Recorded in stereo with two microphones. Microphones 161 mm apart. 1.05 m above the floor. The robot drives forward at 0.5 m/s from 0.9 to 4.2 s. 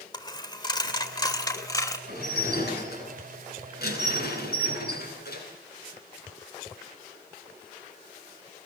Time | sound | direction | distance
0.1 | a dropped coin | 25° left (ahead or behind) | 2 m
2.1 | dishes clattering | 85° left | 9 m